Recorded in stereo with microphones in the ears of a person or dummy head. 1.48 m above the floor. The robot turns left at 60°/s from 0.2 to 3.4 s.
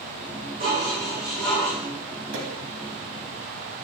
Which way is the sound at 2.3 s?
75° right (ahead or behind).